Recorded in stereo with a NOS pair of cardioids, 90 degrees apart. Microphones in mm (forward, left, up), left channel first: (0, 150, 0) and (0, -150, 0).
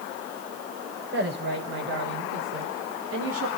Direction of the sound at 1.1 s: 35° right.